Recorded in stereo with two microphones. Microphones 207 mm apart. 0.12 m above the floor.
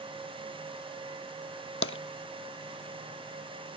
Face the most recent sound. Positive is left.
turn(degrees=80)